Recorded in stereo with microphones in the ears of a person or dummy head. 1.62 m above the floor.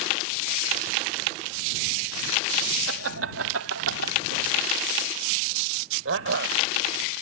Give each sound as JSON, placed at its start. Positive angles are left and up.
{"t": 2.9, "sound": "laughter", "side_deg": -85}